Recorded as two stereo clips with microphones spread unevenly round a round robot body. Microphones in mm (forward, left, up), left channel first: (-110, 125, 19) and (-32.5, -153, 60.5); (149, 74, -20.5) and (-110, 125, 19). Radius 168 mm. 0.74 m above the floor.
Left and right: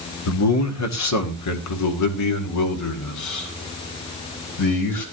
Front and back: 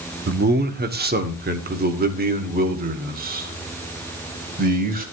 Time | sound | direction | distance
0.3 | a man speaking | 115° left | 1.7 m